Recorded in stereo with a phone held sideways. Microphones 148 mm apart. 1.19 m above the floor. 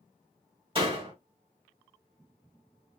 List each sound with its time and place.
0.8 s a door slam: 40° right (ahead or behind), 1.2 m